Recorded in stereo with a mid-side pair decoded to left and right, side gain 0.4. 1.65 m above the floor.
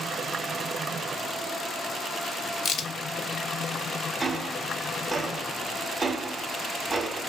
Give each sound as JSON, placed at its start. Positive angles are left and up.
{"t": 2.6, "sound": "a crack", "azimuth_deg": 70, "distance_m": 0.6}
{"t": 4.2, "sound": "ticking", "azimuth_deg": -40, "distance_m": 0.6}